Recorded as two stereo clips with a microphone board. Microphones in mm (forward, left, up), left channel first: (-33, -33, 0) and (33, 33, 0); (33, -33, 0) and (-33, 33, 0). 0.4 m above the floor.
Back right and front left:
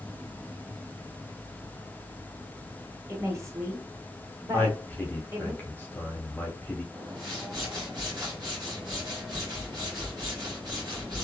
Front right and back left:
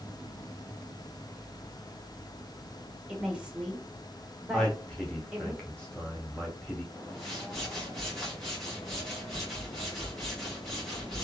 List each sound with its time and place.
3.1 s a woman speaking: 60° left, 1.1 m
4.5 s a man speaking: 105° right, 0.8 m
6.9 s a whoosh: 40° left, 1.3 m